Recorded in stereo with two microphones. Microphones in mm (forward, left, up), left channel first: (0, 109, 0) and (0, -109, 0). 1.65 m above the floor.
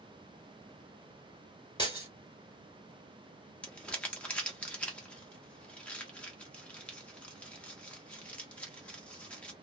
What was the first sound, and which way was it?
Breaking glass, 20° left (ahead or behind).